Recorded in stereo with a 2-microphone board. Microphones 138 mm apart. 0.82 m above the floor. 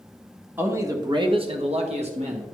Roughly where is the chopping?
No chopping in this recording.